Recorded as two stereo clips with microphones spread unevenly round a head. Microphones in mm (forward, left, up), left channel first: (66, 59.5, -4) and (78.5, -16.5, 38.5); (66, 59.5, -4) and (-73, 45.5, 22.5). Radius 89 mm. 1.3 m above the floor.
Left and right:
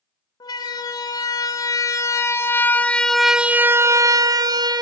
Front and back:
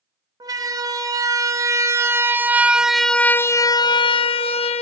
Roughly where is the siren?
Behind left.